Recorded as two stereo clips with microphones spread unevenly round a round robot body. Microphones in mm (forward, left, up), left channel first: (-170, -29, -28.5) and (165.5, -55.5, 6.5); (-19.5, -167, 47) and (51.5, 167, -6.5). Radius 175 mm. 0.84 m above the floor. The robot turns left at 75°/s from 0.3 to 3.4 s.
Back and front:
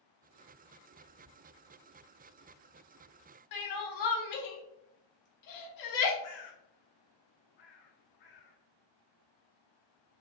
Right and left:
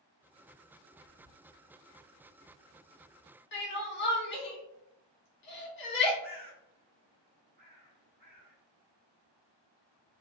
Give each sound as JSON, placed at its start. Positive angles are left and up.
{"t": 1.0, "sound": "whispering", "azimuth_deg": 165, "distance_m": 1.7}
{"t": 3.5, "sound": "crying", "azimuth_deg": -165, "distance_m": 1.0}
{"t": 6.2, "sound": "a bird", "azimuth_deg": 145, "distance_m": 0.8}